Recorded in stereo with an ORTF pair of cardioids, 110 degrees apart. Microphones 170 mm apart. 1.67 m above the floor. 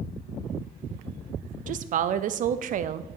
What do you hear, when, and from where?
1.7 s a woman speaking: 50° right, 0.6 m